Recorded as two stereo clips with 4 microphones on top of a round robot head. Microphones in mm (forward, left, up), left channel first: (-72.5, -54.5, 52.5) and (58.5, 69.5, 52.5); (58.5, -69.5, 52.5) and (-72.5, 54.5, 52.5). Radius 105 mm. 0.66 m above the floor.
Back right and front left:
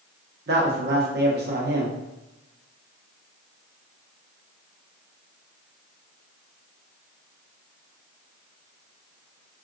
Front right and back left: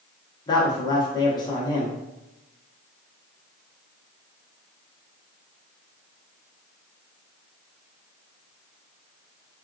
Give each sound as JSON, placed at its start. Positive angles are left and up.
{"t": 0.5, "sound": "a woman speaking", "azimuth_deg": 25, "distance_m": 1.1}